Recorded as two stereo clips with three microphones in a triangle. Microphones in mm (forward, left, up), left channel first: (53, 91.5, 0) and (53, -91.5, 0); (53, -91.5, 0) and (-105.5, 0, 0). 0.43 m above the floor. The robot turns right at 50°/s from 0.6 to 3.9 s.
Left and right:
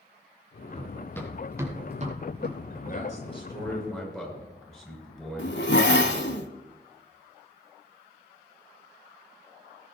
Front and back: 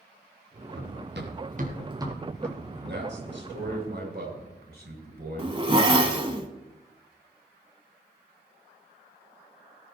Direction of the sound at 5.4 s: 90° left.